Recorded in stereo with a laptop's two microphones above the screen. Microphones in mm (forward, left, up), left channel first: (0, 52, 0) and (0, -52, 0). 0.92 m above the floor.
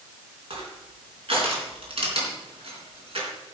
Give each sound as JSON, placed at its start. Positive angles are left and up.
{"t": 0.5, "sound": "crushing", "side_deg": -65, "distance_m": 3.5}